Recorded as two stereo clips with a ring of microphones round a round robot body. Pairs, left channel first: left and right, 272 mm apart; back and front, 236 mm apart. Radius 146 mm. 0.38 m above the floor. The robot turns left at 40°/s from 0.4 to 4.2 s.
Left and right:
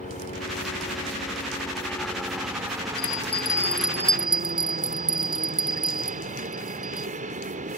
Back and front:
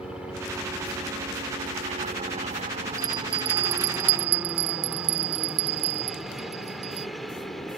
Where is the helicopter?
80° left; by 7.8 s 95° right.